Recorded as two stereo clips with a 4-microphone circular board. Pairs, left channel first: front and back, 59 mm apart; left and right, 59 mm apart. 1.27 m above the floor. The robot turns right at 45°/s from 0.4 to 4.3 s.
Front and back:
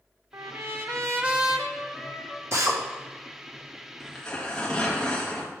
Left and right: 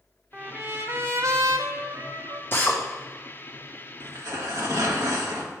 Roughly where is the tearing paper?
Right.